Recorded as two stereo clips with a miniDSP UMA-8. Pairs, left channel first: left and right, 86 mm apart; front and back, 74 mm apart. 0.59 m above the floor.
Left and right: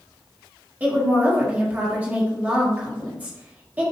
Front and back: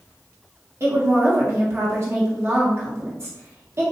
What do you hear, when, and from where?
0.8 s a woman speaking: 155° right, 1.4 m